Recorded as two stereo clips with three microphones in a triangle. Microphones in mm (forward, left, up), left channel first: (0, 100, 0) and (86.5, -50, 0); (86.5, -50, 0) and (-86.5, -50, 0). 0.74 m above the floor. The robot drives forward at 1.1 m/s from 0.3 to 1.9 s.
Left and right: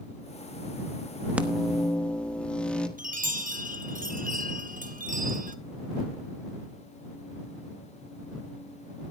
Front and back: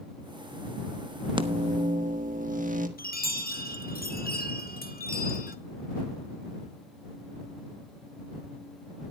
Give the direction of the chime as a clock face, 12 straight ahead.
1 o'clock.